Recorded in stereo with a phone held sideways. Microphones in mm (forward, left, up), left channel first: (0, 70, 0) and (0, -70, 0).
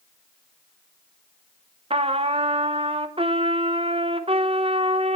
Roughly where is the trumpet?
Right.